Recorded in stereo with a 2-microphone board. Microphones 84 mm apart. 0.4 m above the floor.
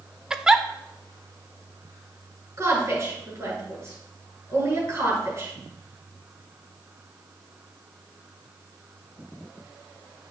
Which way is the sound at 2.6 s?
35° right (ahead or behind).